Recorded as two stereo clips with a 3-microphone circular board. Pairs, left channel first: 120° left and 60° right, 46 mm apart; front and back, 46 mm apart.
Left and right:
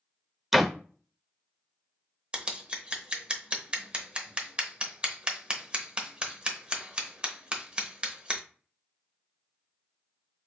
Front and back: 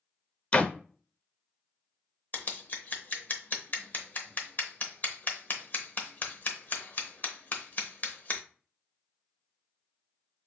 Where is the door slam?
20° left, 0.6 m.